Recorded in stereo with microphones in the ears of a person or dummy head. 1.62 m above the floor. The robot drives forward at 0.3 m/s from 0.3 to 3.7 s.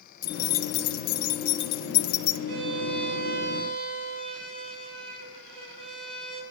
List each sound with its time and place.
0.2 s keys jangling: 55° left (ahead or behind), 1.0 m
2.5 s a violin: 65° right (ahead or behind), 4 m